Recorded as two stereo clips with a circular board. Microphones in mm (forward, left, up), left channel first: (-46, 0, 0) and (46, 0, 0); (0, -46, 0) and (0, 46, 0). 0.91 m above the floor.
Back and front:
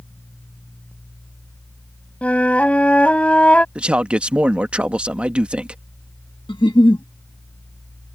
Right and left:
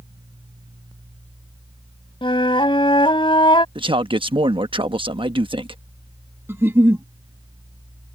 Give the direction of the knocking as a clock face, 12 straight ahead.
I don't hear knocking.